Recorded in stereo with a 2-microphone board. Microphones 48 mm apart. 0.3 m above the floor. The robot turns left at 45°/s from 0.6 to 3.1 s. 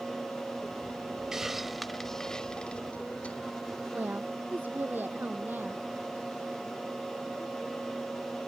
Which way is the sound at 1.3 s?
10° right (ahead or behind).